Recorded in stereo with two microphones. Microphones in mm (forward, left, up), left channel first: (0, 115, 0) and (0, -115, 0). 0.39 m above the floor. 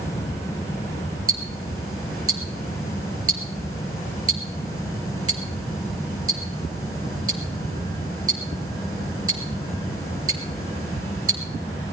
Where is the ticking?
85° right, 2.5 m.